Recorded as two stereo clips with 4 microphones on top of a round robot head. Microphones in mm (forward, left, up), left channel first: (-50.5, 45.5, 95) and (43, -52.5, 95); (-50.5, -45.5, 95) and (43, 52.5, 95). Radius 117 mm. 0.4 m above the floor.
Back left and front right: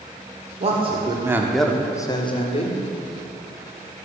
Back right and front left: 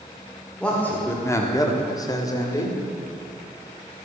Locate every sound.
0.6 s a man speaking: 55° right, 1.7 m; by 2.8 s 165° left, 2 m